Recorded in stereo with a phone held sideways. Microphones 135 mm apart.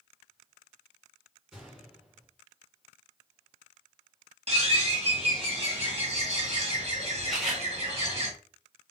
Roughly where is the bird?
Right.